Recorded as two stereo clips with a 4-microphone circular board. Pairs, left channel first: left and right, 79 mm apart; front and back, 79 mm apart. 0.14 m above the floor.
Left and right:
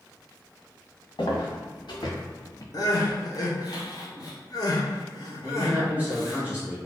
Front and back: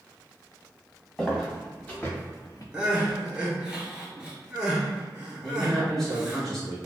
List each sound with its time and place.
1.2 s footsteps: 80° left, 1.3 m; by 2.6 s 45° left, 0.6 m
2.7 s crying: 100° left, 0.7 m
5.4 s a man speaking: 75° right, 1.1 m